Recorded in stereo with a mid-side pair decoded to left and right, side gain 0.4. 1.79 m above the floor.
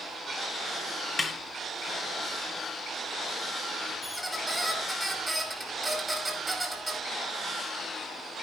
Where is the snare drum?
25° left, 2.5 m.